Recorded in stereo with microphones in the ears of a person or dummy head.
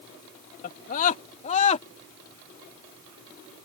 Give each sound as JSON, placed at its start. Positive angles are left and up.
{"t": 0.6, "sound": "a scream", "side_deg": 55}